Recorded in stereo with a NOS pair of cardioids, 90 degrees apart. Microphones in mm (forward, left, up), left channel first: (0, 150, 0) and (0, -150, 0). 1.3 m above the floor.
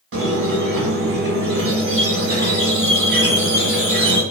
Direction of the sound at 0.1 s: 45° right.